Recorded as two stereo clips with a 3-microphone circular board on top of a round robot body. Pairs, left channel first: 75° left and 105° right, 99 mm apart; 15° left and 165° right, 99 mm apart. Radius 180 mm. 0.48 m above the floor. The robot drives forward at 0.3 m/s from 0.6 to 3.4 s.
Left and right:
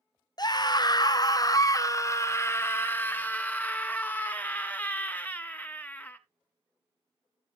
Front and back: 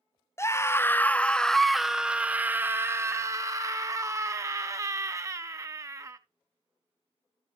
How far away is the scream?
About 0.8 m.